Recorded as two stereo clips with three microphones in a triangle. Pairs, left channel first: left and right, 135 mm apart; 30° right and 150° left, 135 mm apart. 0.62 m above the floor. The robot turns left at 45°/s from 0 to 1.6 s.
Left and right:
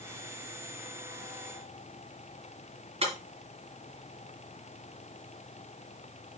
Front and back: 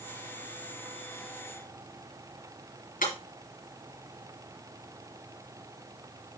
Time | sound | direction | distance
3.0 | breaking glass | 45° right | 3.5 m